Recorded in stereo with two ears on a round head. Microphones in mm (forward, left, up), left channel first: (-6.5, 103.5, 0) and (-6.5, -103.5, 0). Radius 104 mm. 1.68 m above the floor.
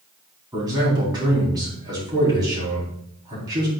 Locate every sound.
0.5 s a man speaking: 15° right (ahead or behind), 3.5 m